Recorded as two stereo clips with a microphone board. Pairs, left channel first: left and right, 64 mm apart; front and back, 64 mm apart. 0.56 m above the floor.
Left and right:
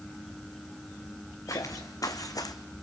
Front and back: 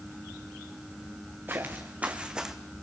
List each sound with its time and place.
1.5 s footsteps: 120° left, 2.5 m; by 2.5 s 95° left, 1.5 m